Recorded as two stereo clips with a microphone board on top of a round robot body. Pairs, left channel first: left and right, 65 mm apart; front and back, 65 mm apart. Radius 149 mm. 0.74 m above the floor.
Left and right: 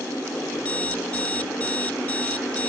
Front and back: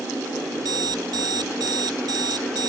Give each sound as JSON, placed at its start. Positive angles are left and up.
{"t": 0.6, "sound": "an alarm clock", "azimuth_deg": 160}